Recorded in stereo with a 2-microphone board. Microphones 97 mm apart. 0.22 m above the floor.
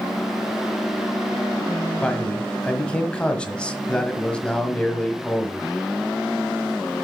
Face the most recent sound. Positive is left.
turn(degrees=10)  # may be behind; listen again after turning